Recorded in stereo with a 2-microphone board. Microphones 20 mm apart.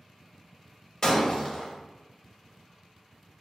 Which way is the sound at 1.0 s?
30° left (ahead or behind).